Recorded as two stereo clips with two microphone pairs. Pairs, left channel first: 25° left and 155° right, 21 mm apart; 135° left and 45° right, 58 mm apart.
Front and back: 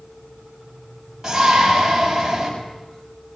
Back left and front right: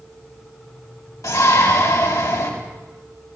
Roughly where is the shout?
Behind left.